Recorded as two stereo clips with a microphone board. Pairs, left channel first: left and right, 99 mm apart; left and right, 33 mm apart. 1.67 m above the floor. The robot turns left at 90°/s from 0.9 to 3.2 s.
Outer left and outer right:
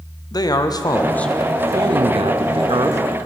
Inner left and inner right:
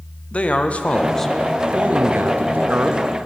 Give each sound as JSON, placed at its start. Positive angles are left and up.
{"t": 0.3, "sound": "a man speaking", "azimuth_deg": 40, "distance_m": 0.5}